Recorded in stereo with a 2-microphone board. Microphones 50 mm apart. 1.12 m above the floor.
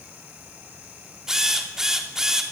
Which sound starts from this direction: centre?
A drill, at 1.3 s.